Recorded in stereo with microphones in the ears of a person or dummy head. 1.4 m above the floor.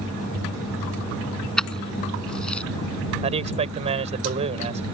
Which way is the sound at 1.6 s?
5° left (ahead or behind).